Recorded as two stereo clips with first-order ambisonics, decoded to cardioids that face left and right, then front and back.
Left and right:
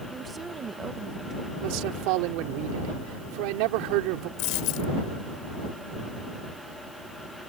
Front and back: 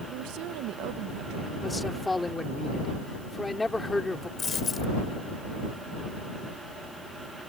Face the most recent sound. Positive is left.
turn(degrees=70)